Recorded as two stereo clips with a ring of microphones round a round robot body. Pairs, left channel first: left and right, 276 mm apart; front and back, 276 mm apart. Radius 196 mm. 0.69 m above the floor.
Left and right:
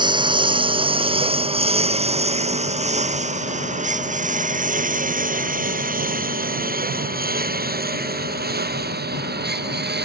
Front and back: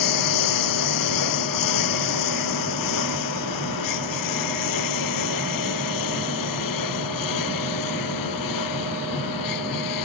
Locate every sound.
0.0 s a lawn mower: 15° right; by 10.1 s 35° right